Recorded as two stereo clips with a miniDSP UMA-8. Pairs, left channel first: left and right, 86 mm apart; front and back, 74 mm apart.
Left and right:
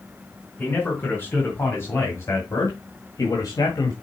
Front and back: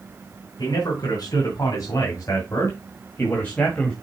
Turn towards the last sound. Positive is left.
turn(degrees=75)